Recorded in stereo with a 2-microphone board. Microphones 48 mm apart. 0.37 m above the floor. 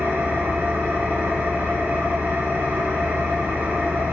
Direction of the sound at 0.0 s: 50° right (ahead or behind).